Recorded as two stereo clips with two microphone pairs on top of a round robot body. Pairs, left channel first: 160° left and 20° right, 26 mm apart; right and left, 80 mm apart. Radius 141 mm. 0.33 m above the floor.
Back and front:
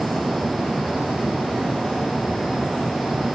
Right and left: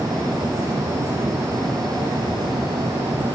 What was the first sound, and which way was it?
Only background noise.